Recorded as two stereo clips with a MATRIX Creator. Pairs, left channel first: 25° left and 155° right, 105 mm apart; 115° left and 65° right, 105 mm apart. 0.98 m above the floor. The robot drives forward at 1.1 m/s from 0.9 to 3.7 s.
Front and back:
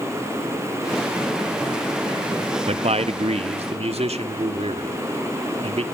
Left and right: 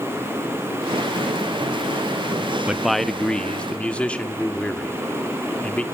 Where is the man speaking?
150° right, 0.6 m; by 5.8 s 170° right, 1.7 m.